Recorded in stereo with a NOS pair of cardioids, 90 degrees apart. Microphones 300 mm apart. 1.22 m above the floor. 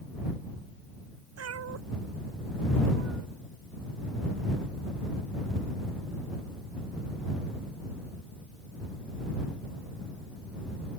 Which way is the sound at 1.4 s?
55° right.